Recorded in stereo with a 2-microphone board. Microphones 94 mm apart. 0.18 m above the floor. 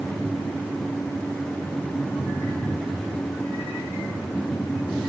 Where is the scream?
I don't hear a scream.